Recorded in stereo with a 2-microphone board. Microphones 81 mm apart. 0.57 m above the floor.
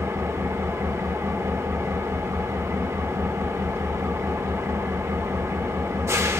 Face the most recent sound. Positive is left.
turn(degrees=-35)  # may be behind; listen again after turning